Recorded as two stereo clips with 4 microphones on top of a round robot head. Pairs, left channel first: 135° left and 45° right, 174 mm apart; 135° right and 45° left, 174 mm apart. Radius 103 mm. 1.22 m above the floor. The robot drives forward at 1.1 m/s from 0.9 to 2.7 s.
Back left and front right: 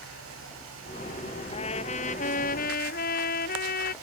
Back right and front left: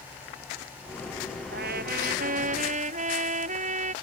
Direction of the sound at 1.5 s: 75° left.